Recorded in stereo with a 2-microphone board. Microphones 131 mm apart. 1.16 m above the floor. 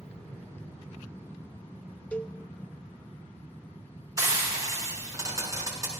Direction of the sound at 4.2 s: 25° right (ahead or behind).